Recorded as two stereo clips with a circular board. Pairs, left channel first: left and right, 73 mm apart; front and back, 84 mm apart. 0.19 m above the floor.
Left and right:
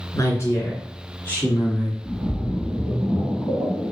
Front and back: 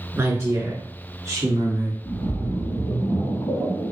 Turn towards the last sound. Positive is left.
turn(degrees=-15)